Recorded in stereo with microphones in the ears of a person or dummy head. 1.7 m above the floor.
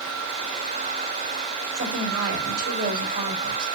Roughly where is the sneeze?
I don't hear a sneeze.